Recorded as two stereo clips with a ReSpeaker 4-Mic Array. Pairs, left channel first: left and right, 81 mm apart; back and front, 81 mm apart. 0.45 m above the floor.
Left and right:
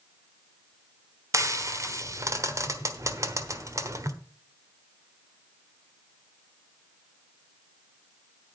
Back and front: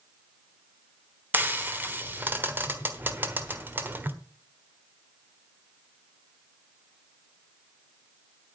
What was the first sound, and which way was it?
Frying, 60° right.